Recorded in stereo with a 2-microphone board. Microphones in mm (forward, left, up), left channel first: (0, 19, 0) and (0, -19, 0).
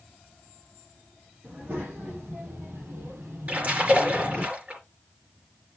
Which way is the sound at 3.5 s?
40° right (ahead or behind).